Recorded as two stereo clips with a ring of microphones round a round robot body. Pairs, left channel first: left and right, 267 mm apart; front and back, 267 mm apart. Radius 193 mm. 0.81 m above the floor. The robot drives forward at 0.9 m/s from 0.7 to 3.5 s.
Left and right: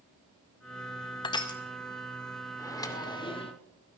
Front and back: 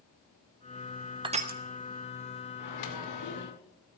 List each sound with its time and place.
1.2 s crushing: 135° left, 0.8 m; by 1.6 s 160° left, 0.9 m
2.6 s a microwave: 10° left, 2 m; by 3.5 s 20° left, 1.4 m